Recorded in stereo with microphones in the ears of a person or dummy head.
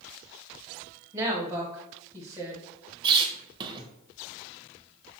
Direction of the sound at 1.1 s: 15° right (ahead or behind).